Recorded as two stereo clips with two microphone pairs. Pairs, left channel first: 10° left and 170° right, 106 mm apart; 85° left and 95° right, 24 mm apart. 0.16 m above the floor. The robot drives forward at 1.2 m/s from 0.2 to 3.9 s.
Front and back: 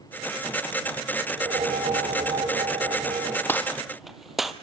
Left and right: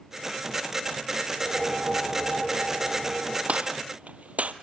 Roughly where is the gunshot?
Ahead right.